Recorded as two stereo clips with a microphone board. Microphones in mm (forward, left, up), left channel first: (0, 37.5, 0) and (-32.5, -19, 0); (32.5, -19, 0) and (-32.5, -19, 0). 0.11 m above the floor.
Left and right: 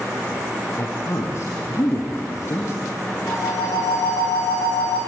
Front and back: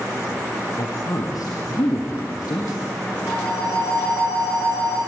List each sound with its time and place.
0.8 s a woman speaking: 20° left, 3.5 m
3.3 s a phone ringing: 30° left, 7.5 m